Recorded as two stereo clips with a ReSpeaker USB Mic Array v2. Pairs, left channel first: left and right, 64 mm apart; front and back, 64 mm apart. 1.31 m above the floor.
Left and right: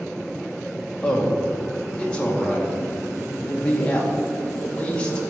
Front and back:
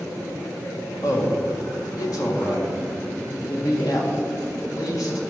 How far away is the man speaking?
About 1.7 m.